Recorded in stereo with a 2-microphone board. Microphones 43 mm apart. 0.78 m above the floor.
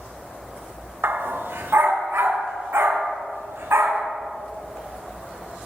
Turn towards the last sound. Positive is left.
turn(degrees=-75)  # may be behind; listen again after turning